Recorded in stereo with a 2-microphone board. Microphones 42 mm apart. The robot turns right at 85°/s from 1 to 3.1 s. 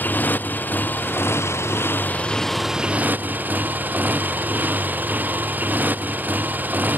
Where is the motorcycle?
45° left; by 7.0 s 140° right.